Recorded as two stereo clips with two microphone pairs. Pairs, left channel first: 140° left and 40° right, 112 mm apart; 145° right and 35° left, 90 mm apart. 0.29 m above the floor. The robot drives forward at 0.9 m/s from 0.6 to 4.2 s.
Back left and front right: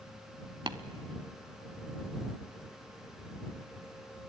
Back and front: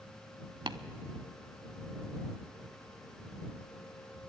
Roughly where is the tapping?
Ahead.